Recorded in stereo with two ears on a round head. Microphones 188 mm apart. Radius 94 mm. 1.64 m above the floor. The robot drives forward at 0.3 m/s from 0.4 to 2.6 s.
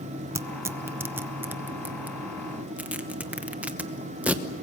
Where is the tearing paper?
15° right (ahead or behind), 0.6 m; by 4.4 s 5° right (ahead or behind), 1.1 m.